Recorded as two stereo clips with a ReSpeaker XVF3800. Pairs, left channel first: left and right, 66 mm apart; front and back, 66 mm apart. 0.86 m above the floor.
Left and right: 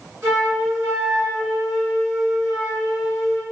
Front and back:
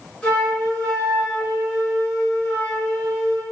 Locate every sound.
0.2 s a flute: 70° right, 1.2 m